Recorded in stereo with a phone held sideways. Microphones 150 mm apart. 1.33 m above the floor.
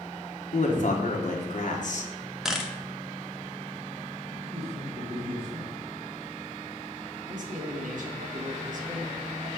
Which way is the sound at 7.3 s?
65° right (ahead or behind).